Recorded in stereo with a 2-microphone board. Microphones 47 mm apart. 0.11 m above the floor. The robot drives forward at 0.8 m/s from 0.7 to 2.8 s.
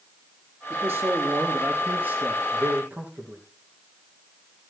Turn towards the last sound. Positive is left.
turn(degrees=-45)  # may be behind; listen again after turning